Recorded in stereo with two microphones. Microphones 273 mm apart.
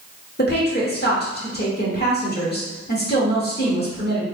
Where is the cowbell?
I don't hear a cowbell.